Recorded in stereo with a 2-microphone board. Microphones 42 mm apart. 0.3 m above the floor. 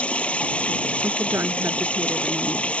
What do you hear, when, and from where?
0.0 s running water: 30° left (ahead or behind)
1.0 s a woman speaking: 70° right (ahead or behind)